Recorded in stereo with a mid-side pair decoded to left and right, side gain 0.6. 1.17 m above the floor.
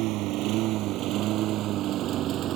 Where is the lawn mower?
70° right; by 2.6 s 55° right.